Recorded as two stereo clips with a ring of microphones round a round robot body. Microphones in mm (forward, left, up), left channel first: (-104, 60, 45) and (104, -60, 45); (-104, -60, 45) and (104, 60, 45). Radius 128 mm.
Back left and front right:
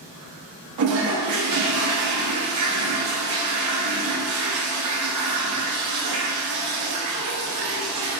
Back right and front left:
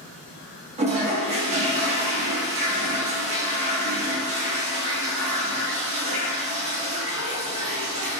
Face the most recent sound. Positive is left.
turn(degrees=-35)